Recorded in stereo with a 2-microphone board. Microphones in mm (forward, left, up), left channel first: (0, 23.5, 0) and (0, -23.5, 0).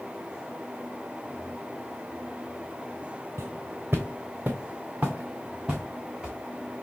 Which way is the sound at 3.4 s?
65° right (ahead or behind).